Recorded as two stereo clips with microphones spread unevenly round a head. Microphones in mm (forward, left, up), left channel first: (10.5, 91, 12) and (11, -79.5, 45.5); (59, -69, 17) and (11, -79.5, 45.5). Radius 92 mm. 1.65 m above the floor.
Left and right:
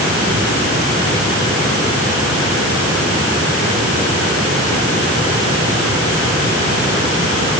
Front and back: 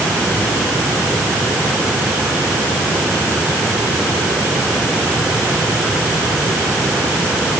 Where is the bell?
No bell in this recording.